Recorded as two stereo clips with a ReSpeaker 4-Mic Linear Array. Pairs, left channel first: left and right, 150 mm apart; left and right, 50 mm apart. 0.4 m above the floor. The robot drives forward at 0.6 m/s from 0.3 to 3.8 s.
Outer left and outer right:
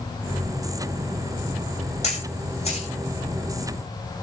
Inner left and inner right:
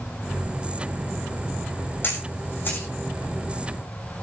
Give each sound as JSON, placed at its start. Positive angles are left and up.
{"t": 2.0, "sound": "a camera shutter", "side_deg": 50, "distance_m": 5.5}